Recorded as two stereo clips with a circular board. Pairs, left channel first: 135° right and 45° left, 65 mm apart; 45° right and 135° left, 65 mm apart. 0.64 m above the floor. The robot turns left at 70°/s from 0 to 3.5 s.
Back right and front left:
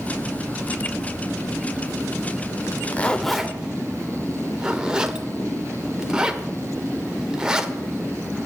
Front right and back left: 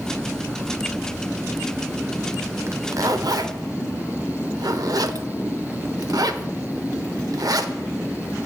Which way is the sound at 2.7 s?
Straight behind.